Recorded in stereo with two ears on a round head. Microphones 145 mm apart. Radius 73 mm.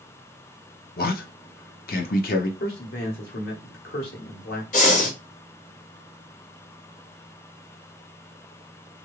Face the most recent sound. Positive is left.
turn(degrees=50)  # may be behind; listen again after turning